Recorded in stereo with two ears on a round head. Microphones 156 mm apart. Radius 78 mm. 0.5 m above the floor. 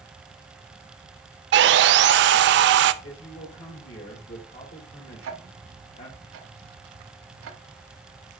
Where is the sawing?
70° right (ahead or behind), 0.5 m.